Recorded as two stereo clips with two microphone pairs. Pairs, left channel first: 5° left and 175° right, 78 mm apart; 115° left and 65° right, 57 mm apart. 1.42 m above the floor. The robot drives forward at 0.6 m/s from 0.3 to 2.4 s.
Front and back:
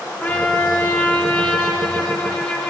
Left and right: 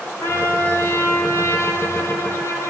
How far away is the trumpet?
About 9.5 m.